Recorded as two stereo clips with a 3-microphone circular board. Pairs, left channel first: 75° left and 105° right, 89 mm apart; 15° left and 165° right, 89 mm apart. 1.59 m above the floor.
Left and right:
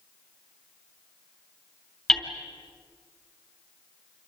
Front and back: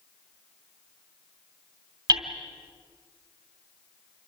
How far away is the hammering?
About 3 m.